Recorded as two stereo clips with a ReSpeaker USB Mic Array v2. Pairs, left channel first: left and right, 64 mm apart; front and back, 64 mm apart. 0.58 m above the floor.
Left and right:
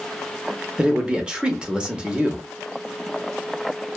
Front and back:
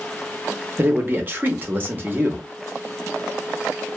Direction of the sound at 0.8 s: 160° right.